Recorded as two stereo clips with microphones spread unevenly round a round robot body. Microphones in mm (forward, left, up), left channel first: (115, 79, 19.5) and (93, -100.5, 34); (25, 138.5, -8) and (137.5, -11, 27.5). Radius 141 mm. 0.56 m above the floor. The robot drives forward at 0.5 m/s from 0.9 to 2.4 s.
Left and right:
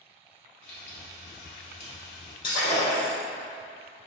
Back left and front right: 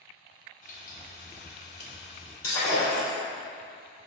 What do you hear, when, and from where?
0.6 s frying: 90° left, 1.1 m; by 2.3 s 125° left, 1.3 m
2.4 s breaking glass: 155° left, 1.7 m